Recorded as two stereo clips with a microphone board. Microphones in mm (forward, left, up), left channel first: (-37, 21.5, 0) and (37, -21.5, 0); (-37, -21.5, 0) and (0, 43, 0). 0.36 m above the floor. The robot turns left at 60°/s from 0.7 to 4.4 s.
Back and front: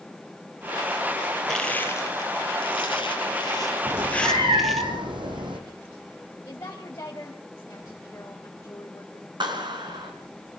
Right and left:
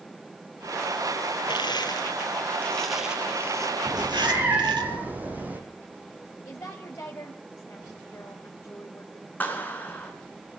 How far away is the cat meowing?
About 4 m.